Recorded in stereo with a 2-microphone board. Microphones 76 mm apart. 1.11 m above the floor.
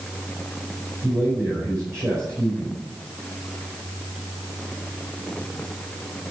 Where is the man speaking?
40° right (ahead or behind), 5 m.